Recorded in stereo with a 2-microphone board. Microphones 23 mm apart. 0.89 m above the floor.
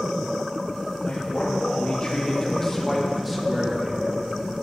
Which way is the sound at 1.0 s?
55° left (ahead or behind).